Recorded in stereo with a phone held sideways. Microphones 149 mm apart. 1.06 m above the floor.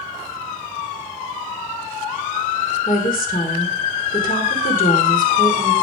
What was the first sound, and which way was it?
A woman speaking, 70° left (ahead or behind).